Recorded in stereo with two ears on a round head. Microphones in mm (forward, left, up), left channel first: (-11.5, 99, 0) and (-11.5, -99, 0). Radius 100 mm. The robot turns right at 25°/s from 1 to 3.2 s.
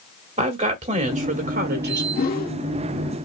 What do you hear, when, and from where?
0.4 s a woman speaking: 30° right (ahead or behind), 2 m; by 2.0 s 50° right (ahead or behind), 2 m
2.1 s a whoosh: 45° left (ahead or behind), 1.3 m